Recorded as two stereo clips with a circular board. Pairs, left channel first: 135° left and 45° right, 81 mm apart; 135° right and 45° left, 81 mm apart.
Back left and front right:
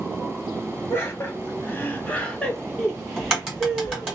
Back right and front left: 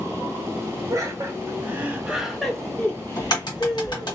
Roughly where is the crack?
Behind right.